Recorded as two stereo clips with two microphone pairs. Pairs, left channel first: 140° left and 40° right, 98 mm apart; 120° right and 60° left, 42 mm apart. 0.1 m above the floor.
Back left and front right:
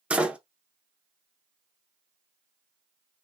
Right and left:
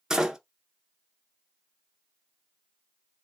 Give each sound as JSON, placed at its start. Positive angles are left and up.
{"t": 0.1, "sound": "a door slam", "azimuth_deg": 20, "distance_m": 0.8}